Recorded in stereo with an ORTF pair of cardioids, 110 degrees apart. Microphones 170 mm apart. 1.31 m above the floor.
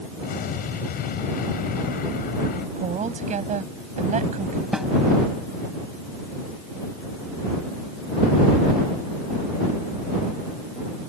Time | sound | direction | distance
0.2 | an explosion | 60° left | ?
2.8 | a woman speaking | 45° right | ?
4.7 | a snare drum | 5° right | ?